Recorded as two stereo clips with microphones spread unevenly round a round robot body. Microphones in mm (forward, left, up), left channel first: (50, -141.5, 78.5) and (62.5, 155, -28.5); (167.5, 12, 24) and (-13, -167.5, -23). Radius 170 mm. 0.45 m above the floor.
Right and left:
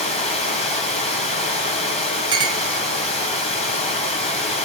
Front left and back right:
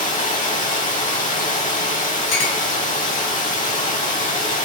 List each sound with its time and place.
0.0 s running water: 20° right, 1.9 m
2.3 s a clink: 20° left, 1.7 m